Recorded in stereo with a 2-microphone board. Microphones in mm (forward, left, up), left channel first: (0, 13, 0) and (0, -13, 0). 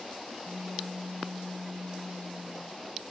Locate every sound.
0.4 s a pop: 55° right (ahead or behind), 1.5 m